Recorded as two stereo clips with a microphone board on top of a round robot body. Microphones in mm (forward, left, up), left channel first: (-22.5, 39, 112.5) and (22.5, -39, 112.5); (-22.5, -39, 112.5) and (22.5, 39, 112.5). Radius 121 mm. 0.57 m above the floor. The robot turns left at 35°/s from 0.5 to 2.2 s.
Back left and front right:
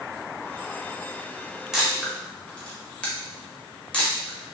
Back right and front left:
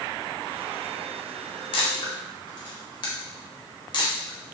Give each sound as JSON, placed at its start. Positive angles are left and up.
{"t": 1.7, "sound": "a camera shutter", "azimuth_deg": -145, "distance_m": 1.1}